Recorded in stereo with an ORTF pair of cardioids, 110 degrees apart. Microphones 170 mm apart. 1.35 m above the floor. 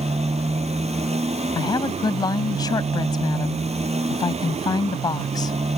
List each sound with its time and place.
0.0 s a motorcycle: 40° right
1.6 s a woman speaking: 25° left